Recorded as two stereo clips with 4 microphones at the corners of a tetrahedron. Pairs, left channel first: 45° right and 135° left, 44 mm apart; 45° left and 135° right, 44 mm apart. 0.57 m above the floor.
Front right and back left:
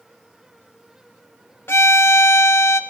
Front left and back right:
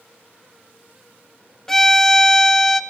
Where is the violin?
35° right, 0.7 m.